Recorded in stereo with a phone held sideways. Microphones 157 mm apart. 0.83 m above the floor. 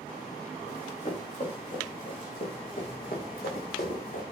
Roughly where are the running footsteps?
Left.